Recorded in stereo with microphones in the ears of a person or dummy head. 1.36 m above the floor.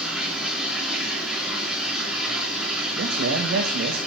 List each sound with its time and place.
0.0 s running water: centre (ahead or behind), 4.5 m
3.0 s a man speaking: 80° right, 2 m